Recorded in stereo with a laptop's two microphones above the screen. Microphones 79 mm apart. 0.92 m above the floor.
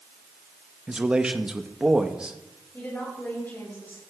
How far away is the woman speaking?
About 5.5 m.